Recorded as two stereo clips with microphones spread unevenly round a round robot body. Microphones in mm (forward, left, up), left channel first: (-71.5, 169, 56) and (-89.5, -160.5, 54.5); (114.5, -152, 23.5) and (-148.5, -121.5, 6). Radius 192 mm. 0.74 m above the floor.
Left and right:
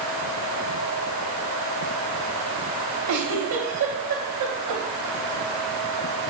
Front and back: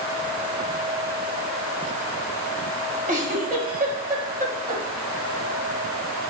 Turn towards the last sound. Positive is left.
turn(degrees=-125)